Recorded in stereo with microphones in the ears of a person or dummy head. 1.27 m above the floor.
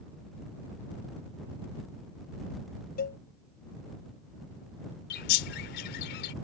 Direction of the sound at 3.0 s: 45° left (ahead or behind).